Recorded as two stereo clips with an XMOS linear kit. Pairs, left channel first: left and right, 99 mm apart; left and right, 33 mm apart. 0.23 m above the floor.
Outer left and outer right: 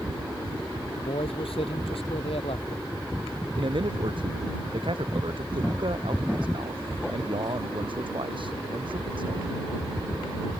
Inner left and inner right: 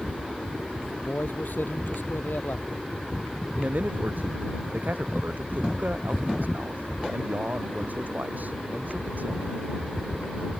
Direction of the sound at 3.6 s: 60° right (ahead or behind).